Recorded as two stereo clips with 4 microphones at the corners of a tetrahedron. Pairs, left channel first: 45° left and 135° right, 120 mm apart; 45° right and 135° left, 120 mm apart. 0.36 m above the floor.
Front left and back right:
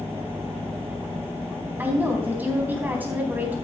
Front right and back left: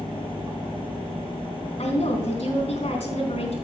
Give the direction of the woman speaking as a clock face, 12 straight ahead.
2 o'clock.